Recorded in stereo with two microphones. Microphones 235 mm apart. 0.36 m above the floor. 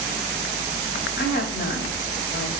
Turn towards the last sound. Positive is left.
turn(degrees=45)  # may be behind; listen again after turning